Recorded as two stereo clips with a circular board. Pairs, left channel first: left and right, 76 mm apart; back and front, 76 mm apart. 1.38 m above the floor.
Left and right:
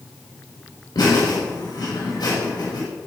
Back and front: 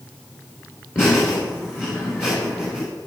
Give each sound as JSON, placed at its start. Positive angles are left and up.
{"t": 0.9, "sound": "laughter", "azimuth_deg": 115, "distance_m": 3.5}